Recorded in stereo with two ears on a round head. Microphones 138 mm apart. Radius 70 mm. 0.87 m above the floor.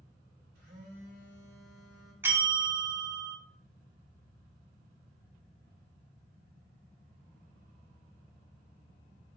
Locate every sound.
0.6 s a phone buzzing: 85° right, 2 m
2.2 s a bell: 15° right (ahead or behind), 0.5 m